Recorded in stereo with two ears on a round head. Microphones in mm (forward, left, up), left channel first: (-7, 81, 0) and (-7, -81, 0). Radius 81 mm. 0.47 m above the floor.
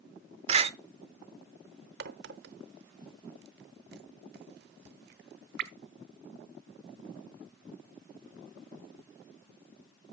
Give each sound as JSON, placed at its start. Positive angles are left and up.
{"t": 0.5, "sound": "a door slam", "side_deg": -35, "distance_m": 0.7}
{"t": 2.0, "sound": "a crack", "side_deg": -60, "distance_m": 0.9}